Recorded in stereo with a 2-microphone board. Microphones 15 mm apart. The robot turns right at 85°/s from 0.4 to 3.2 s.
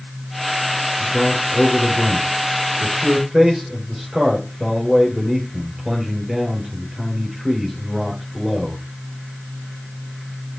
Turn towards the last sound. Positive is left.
turn(degrees=-160)